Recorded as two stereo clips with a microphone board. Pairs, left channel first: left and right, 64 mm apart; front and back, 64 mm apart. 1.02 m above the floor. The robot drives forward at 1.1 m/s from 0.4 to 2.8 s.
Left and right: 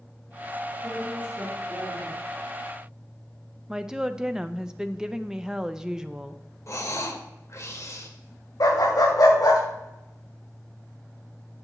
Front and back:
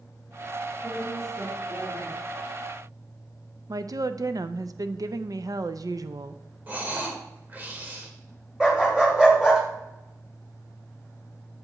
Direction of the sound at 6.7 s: 120° left.